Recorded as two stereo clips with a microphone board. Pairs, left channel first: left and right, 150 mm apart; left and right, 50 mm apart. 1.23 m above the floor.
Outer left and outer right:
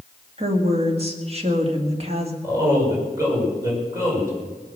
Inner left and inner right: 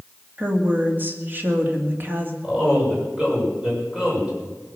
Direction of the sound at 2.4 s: 20° right (ahead or behind).